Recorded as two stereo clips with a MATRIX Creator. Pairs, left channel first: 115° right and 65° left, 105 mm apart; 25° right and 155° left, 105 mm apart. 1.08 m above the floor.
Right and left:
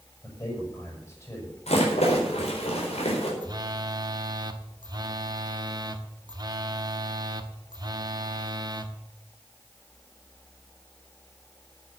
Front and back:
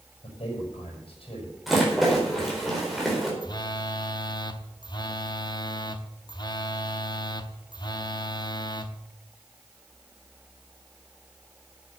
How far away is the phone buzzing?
About 0.9 m.